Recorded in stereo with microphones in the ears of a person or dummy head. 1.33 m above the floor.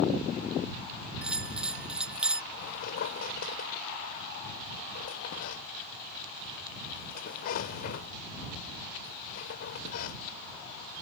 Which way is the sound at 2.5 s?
60° left (ahead or behind).